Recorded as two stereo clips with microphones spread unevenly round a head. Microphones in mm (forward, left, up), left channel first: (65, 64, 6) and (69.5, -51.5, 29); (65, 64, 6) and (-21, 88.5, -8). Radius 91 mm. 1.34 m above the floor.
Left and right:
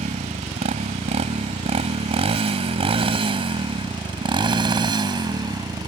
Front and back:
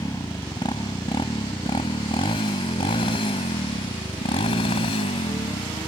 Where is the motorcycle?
80° right; by 5.9 s 35° right.